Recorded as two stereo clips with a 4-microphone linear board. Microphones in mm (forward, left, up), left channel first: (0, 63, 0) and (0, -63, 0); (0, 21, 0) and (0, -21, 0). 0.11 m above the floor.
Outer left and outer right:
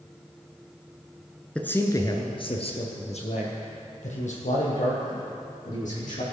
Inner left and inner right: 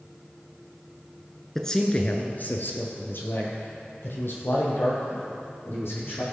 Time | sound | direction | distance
1.6 | a man speaking | 10° left (ahead or behind) | 1.1 m